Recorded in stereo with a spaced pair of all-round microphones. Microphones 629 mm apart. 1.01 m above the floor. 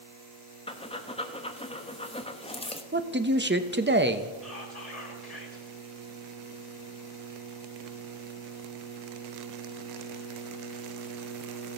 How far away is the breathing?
About 0.6 m.